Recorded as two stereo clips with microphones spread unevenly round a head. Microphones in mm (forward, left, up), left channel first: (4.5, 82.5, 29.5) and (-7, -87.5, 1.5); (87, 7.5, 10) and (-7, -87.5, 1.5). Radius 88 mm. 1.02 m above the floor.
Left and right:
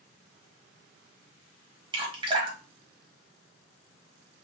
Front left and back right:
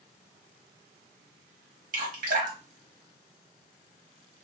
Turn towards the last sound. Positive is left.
turn(degrees=-150)